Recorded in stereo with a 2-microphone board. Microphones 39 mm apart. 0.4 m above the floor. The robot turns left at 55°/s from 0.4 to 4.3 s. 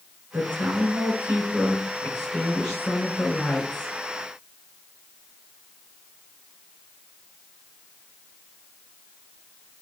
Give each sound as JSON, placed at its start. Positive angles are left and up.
{"t": 0.3, "sound": "a woman speaking", "azimuth_deg": -85, "distance_m": 6.0}